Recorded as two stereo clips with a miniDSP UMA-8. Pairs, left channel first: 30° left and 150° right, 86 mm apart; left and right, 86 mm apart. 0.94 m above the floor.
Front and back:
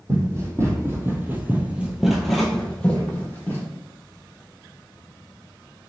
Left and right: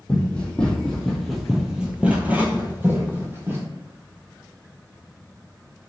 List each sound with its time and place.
0.1 s running footsteps: 165° left, 1.6 m; by 3.7 s 35° right, 1.5 m